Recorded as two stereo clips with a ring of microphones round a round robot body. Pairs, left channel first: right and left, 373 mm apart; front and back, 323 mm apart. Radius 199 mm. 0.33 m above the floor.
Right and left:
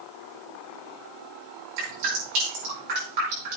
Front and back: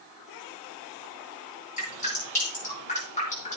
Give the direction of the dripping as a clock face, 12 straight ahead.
10 o'clock.